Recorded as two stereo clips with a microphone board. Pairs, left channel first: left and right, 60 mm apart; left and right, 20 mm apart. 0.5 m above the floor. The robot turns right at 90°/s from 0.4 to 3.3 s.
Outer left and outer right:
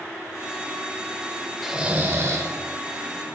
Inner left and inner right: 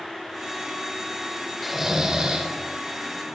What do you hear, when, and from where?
1.6 s snoring: 175° right, 0.9 m; by 2.5 s 95° right, 0.9 m